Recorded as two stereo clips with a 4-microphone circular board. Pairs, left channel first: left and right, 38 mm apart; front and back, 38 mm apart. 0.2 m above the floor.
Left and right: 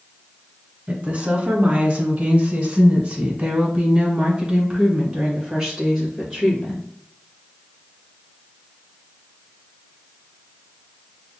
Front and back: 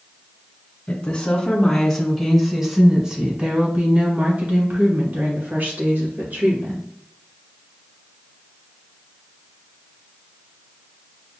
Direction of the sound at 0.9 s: 40° right.